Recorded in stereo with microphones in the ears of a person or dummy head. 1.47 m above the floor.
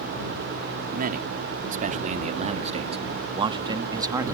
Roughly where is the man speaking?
Right.